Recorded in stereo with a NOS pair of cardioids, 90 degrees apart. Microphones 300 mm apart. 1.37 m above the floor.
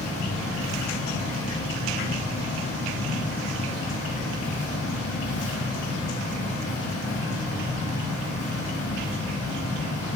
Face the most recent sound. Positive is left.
turn(degrees=50)